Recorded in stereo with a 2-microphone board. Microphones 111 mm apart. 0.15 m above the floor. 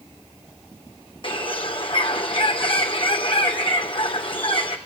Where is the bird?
50° left (ahead or behind), 2.5 m.